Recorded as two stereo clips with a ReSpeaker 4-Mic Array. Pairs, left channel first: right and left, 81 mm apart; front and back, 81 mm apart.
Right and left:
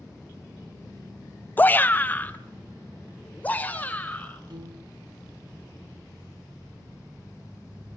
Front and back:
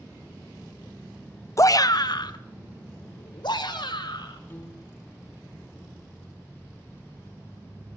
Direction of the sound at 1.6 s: 30° right.